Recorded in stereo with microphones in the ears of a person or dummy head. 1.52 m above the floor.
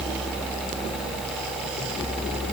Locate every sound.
Only background noise.